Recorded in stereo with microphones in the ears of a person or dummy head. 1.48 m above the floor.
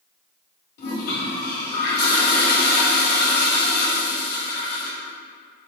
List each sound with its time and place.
0.8 s a toilet flushing: 60° left (ahead or behind), 2 m